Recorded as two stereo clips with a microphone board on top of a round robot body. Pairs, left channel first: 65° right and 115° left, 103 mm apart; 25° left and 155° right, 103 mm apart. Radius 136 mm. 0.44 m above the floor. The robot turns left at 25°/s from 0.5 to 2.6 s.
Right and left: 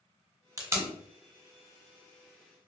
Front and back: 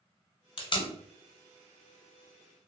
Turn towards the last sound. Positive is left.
turn(degrees=5)